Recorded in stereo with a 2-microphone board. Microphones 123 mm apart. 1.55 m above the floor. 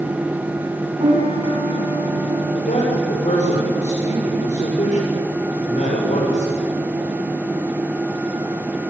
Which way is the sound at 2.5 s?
75° left (ahead or behind).